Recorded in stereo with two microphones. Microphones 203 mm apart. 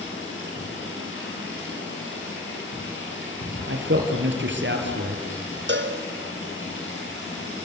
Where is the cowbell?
65° right (ahead or behind), 2 m.